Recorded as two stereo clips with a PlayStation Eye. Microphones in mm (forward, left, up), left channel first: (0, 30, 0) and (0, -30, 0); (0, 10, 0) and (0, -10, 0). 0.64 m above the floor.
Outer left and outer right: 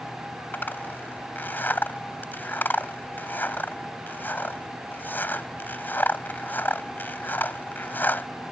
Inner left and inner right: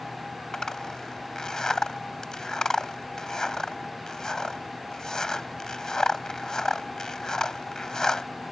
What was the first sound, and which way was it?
A zipper, 30° left (ahead or behind).